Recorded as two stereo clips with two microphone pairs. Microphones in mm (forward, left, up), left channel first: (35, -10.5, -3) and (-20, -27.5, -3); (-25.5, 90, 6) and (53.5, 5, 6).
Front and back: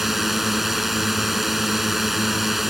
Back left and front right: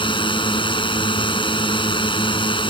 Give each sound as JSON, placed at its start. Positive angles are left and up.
{"t": 0.0, "sound": "a drone", "azimuth_deg": 115}